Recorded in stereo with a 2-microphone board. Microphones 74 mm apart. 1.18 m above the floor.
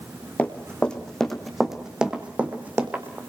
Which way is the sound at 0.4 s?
20° left (ahead or behind).